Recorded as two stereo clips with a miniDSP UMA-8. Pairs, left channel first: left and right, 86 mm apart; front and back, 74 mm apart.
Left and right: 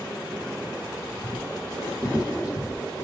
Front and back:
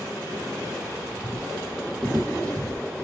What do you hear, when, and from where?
1.1 s footsteps: 130° left, 2 m; by 3.0 s 55° left, 1.9 m